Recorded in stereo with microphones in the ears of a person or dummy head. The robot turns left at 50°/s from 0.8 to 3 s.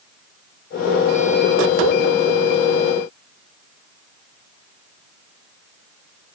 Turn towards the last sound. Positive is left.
No sound to turn to.